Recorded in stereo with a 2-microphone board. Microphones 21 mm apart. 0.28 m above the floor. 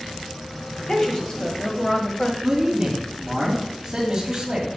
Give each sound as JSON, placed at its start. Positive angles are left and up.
{"t": 0.8, "sound": "a woman speaking", "side_deg": 30, "distance_m": 1.7}
{"t": 2.4, "sound": "a man speaking", "side_deg": -15, "distance_m": 2.0}